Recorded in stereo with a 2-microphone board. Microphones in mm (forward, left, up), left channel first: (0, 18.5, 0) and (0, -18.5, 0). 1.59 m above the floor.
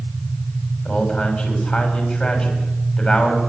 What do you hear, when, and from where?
0.8 s a man speaking: 35° left (ahead or behind), 7.5 m